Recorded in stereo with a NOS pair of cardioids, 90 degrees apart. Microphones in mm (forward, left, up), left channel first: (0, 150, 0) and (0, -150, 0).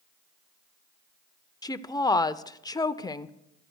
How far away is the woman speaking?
About 0.6 m.